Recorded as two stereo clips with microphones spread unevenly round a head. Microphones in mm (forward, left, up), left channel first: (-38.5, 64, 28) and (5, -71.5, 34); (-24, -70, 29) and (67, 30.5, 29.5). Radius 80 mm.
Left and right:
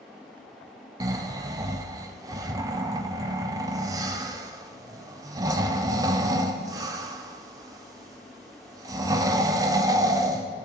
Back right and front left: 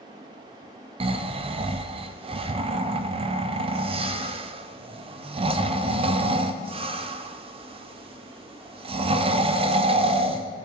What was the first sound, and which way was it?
Snoring, 5° right.